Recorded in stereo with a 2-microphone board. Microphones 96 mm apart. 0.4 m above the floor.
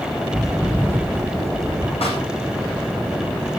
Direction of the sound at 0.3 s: Centre (ahead or behind).